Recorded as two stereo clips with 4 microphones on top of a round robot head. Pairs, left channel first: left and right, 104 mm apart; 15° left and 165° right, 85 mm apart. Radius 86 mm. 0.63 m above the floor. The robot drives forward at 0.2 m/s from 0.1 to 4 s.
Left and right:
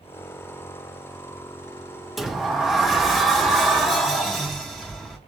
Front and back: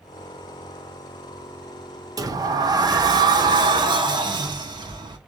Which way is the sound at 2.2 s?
175° right.